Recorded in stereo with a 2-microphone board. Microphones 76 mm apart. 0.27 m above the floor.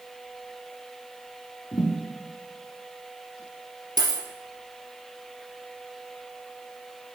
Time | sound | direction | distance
1.7 | a thud | 70° left (ahead or behind) | 1.4 m
4.0 | a dropped coin | 65° right (ahead or behind) | 1.4 m